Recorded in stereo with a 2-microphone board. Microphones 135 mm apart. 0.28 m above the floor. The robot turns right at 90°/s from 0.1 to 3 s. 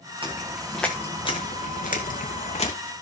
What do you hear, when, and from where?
0.2 s footsteps: 40° right (ahead or behind), 2.5 m; by 2.7 s 45° left (ahead or behind), 1.5 m